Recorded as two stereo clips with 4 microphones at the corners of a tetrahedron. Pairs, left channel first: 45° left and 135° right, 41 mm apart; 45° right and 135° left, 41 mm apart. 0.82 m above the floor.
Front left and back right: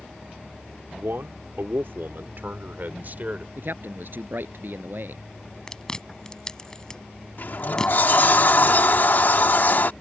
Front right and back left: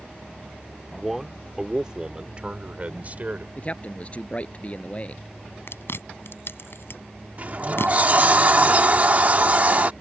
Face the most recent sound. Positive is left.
turn(degrees=85)